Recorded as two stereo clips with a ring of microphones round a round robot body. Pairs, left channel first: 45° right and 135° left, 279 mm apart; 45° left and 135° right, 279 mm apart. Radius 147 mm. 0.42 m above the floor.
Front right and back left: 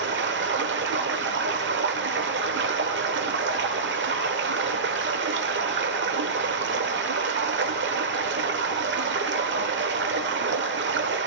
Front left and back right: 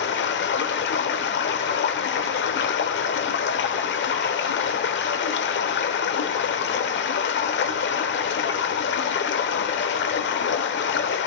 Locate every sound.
0.0 s running water: 90° left, 0.9 m